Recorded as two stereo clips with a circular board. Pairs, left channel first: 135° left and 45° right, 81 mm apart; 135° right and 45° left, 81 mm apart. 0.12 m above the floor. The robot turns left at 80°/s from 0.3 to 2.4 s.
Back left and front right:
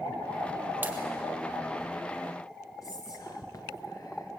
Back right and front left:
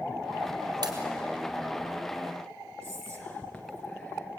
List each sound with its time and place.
0.8 s a pop: 20° left, 3 m; by 0.9 s 10° left, 3 m
2.8 s whispering: 150° left, 1.7 m